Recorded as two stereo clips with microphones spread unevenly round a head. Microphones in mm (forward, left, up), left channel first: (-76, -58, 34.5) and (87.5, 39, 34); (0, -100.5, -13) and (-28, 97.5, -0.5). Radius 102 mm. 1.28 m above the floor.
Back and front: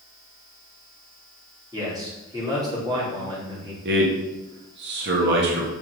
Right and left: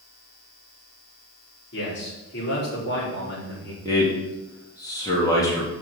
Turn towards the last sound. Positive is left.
turn(degrees=-5)